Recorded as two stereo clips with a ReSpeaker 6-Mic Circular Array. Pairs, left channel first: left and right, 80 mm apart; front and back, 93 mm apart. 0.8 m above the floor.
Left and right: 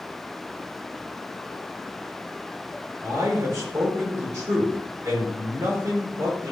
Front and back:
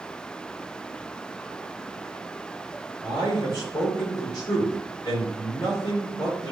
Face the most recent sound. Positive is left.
turn(degrees=-45)